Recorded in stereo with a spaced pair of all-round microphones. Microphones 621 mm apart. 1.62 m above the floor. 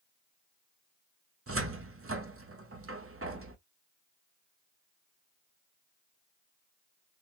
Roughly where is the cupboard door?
Right.